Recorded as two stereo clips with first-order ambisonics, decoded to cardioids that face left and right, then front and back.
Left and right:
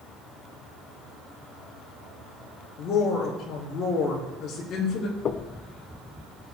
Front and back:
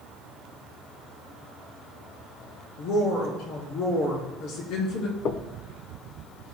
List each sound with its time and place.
2.8 s a woman speaking: 35° left, 3.5 m
5.2 s knocking: 40° left, 0.7 m